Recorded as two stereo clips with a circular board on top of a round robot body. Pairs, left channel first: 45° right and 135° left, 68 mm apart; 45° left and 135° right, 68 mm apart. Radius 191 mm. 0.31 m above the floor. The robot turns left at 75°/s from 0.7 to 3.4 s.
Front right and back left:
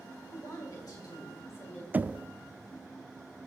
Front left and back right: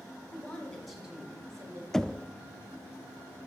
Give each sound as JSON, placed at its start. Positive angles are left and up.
{"t": 0.3, "sound": "a woman speaking", "azimuth_deg": -30, "distance_m": 4.0}
{"t": 1.9, "sound": "knocking", "azimuth_deg": 120, "distance_m": 0.5}